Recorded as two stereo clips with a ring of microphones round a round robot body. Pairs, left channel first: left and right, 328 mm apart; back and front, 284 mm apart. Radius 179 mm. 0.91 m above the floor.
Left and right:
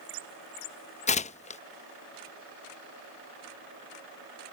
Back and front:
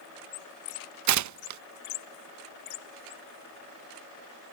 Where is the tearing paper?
20° left.